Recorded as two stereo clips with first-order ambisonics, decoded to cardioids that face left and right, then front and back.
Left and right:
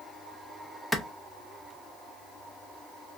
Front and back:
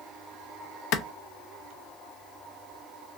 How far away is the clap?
About 0.7 m.